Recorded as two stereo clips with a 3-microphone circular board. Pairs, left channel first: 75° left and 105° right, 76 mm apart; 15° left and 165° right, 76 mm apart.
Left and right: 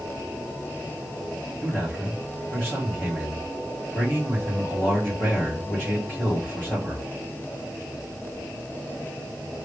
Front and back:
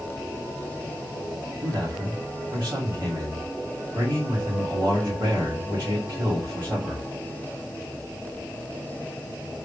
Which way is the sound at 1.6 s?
140° left.